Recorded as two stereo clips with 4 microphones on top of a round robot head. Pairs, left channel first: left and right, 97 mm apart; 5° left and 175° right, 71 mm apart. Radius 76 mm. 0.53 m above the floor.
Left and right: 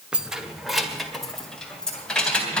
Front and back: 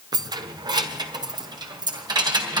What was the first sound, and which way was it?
Keys jangling, 170° right.